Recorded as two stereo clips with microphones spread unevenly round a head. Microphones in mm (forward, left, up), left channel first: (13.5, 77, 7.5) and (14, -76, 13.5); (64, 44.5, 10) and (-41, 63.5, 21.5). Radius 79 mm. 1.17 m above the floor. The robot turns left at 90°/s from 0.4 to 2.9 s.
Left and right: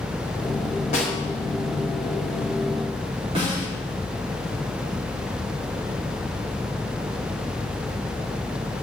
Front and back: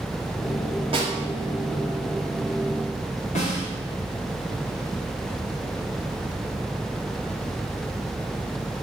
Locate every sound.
0.9 s a snare drum: 140° left, 4 m; by 1.1 s 120° left, 4 m
3.4 s a snare drum: 35° right, 4 m